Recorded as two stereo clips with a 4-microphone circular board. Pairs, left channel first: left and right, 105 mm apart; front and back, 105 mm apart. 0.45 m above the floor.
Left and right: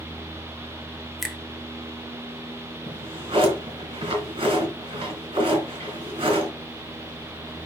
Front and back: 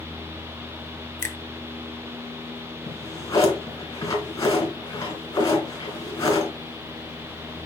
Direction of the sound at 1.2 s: Straight ahead.